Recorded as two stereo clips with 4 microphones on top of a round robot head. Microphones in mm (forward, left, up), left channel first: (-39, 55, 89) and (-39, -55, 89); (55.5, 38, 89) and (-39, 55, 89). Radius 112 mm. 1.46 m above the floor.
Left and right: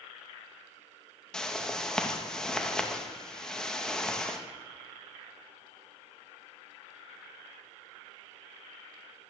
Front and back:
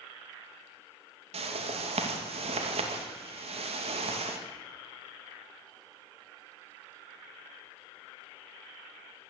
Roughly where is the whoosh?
Behind.